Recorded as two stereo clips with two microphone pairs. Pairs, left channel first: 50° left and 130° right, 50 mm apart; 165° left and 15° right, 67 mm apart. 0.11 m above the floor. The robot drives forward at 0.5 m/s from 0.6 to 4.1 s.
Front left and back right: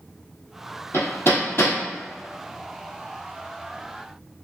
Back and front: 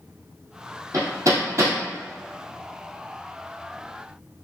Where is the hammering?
15° left, 1.6 m; by 1.8 s 20° left, 1.3 m.